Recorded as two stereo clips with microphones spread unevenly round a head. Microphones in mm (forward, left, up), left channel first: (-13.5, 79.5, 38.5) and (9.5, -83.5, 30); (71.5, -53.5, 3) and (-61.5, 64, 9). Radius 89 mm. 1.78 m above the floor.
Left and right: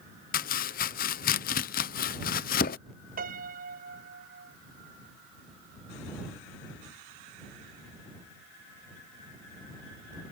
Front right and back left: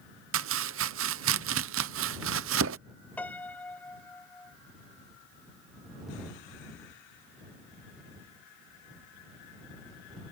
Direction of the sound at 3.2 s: 125° right.